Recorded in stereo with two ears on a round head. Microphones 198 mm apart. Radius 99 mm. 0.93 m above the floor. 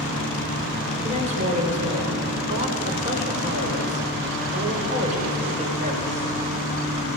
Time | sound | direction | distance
1.0 | a woman speaking | 30° right (ahead or behind) | 3.5 m